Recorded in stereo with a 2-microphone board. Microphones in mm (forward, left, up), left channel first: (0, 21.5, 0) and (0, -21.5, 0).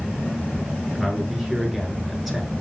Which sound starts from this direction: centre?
A man speaking, at 1.0 s.